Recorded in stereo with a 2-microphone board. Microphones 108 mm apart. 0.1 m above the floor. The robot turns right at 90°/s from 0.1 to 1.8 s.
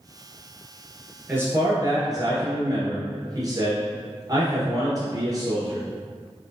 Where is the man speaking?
155° right, 1.4 m; by 5.8 s 110° right, 1.4 m.